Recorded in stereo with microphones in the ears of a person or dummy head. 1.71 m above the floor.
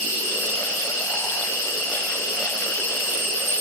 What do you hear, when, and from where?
0.0 s an insect: 40° left (ahead or behind), 3.5 m